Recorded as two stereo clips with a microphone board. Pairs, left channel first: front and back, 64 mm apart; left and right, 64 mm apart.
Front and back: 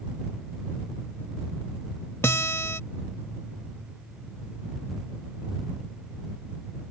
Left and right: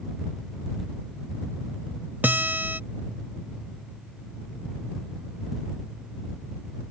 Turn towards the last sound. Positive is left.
turn(degrees=-35)